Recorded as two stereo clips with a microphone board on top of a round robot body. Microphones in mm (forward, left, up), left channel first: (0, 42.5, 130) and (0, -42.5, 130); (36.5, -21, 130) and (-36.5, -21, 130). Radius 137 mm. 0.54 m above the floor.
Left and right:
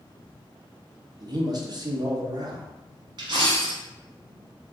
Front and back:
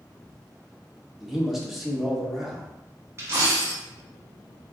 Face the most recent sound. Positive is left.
turn(degrees=-125)